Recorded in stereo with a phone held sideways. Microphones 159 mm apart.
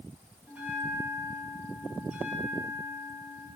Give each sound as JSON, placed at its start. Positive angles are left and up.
{"t": 0.5, "sound": "a bell", "side_deg": -10, "distance_m": 2.5}